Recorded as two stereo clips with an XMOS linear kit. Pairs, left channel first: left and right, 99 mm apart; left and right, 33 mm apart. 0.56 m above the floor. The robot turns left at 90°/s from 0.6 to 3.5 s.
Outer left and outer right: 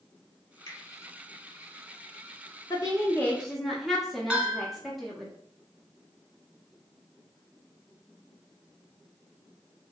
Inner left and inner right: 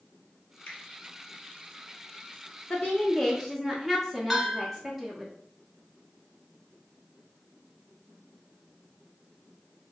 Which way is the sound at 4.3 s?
10° right (ahead or behind).